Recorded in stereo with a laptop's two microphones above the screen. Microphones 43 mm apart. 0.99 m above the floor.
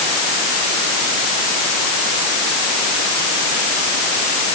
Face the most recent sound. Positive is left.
No sound to turn to.